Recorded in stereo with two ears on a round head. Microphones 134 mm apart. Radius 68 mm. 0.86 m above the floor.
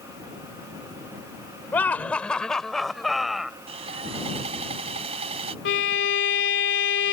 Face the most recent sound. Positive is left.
turn(degrees=90)